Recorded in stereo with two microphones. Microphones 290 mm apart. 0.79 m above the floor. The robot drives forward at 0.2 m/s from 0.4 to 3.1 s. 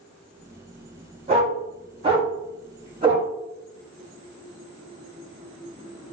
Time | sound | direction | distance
1.3 | a dog barking | 20° right (ahead or behind) | 1.8 m